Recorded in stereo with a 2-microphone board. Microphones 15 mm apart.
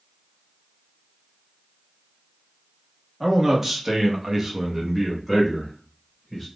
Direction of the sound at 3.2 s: 15° right (ahead or behind).